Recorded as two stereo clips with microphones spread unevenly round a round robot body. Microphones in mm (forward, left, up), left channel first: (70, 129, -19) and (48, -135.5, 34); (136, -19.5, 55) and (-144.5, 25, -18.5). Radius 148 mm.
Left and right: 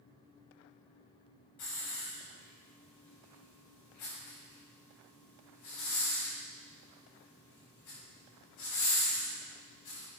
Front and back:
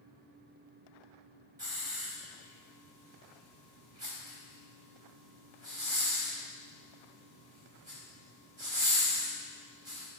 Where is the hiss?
100° left, 4.5 m.